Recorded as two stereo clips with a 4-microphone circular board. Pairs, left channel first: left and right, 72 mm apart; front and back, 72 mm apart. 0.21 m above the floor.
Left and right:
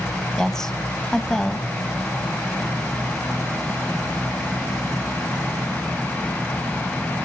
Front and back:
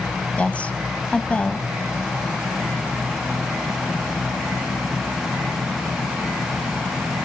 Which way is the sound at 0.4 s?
20° left.